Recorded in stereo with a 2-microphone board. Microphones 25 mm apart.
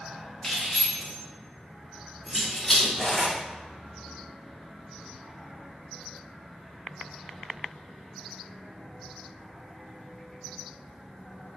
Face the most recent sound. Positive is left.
turn(degrees=20)  # may be behind; listen again after turning